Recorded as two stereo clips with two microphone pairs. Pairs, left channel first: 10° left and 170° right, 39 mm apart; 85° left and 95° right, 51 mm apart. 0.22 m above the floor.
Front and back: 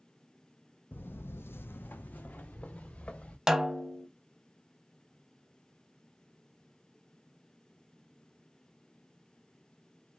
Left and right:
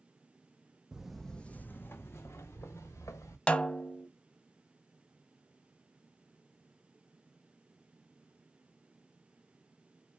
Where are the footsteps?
20° right, 0.7 m; by 3.4 s 70° left, 1.7 m.